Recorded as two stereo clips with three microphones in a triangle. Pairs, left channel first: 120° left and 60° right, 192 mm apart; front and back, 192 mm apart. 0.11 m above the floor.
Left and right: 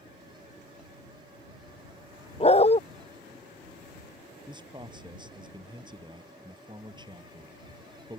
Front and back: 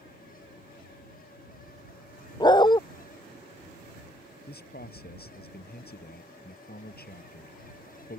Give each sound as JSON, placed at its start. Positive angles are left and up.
{"t": 2.4, "sound": "a dog barking", "azimuth_deg": 65}
{"t": 4.5, "sound": "a man speaking", "azimuth_deg": 0}